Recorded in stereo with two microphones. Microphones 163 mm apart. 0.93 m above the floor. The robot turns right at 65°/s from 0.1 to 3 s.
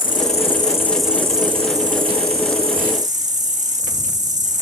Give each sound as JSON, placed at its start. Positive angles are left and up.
{"t": 0.0, "sound": "an insect", "azimuth_deg": 120, "distance_m": 1.0}